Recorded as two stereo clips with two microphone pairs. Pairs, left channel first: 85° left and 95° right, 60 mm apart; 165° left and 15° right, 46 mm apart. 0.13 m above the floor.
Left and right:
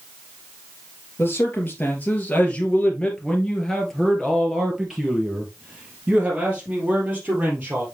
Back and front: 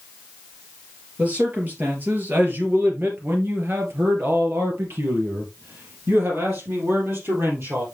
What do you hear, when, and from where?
1.2 s a man speaking: 40° left, 3 m; by 7.8 s 35° right, 4 m